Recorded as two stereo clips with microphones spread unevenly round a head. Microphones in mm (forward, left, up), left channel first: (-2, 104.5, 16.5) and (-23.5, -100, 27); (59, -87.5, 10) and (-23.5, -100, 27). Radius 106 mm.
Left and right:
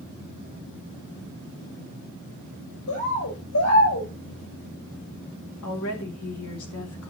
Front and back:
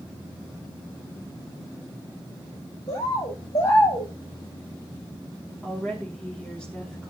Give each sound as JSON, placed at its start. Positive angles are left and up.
{"t": 2.9, "sound": "a bird", "azimuth_deg": 60, "distance_m": 5.0}
{"t": 5.6, "sound": "a woman speaking", "azimuth_deg": 95, "distance_m": 2.5}